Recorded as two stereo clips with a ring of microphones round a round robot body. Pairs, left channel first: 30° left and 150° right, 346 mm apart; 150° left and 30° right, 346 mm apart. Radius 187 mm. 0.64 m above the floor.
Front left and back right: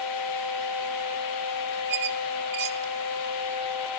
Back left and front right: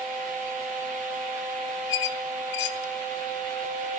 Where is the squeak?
175° left, 1.7 m.